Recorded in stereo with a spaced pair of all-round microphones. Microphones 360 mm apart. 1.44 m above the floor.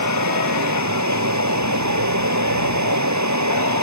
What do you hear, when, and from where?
0.0 s running water: 50° right (ahead or behind)